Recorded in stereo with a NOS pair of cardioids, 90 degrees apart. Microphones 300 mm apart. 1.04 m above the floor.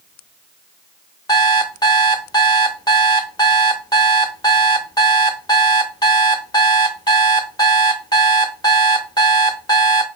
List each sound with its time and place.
1.3 s an alarm clock: 15° left, 0.7 m